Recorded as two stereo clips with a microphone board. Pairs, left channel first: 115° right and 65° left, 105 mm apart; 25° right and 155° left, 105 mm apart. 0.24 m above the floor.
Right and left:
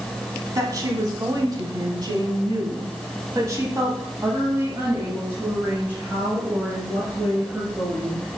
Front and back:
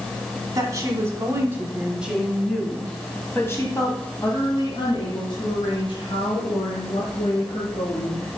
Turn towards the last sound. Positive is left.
turn(degrees=-15)